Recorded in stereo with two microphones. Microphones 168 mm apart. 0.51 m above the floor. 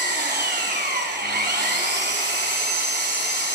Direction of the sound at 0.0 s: 80° right.